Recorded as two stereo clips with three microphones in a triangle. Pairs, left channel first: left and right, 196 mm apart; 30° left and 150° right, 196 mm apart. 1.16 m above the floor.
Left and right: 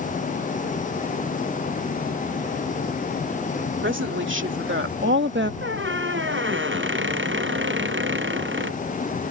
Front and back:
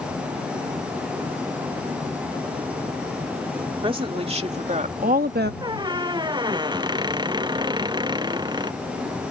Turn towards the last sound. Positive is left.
turn(degrees=-80)